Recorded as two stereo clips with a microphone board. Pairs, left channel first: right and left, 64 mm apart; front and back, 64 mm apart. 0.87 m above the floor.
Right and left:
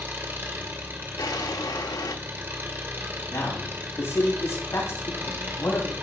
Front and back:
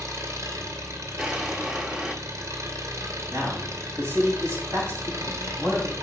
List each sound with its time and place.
0.0 s an engine running: 145° left, 1.9 m
1.2 s a drawer: 100° right, 1.0 m
3.3 s a man speaking: 135° right, 7 m